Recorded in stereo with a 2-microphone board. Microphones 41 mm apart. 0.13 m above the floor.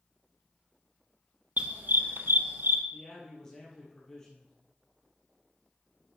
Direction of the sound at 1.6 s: 45° right (ahead or behind).